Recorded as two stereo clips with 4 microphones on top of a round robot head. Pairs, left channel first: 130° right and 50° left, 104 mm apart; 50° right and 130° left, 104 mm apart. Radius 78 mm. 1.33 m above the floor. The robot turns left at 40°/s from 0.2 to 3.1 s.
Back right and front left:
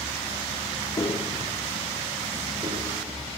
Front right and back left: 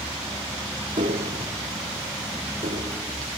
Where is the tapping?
170° left, 1.8 m; by 3.4 s 85° left, 1.8 m.